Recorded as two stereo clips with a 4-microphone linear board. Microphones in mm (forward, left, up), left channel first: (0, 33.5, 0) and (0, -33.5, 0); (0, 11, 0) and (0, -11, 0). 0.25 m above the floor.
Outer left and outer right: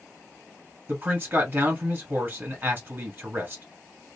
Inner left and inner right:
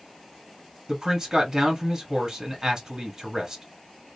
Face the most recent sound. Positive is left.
turn(degrees=-30)  # may be behind; listen again after turning